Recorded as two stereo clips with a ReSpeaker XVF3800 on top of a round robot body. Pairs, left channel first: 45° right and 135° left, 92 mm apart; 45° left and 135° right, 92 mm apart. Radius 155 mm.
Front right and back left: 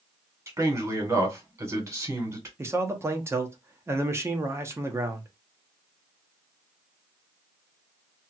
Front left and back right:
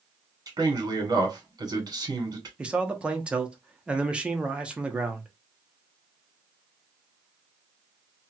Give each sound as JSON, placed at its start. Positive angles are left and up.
{"t": 0.5, "sound": "a man speaking", "azimuth_deg": -175, "distance_m": 1.8}
{"t": 2.6, "sound": "a man speaking", "azimuth_deg": 160, "distance_m": 1.0}